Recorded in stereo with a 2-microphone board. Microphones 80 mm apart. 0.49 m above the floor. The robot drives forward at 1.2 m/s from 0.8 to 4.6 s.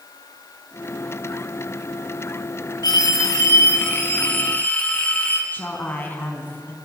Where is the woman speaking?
25° left (ahead or behind), 4 m.